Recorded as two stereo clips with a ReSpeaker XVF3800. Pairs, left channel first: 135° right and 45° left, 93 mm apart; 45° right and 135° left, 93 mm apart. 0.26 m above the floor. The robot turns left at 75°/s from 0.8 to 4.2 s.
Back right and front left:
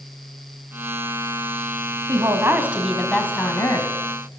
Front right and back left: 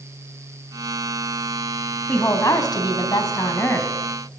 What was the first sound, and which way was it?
A woman speaking, 20° left.